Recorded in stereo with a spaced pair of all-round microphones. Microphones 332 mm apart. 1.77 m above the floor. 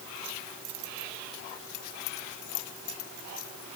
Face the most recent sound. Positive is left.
No sound to turn to.